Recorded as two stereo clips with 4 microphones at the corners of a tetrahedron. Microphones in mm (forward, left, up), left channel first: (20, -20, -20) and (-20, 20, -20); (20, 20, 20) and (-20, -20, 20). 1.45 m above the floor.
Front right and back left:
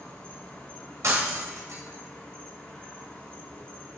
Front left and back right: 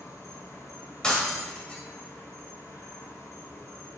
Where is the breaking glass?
115° left, 2.5 m.